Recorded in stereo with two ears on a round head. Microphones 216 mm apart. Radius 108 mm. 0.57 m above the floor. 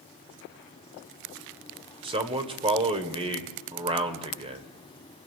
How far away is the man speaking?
About 2 m.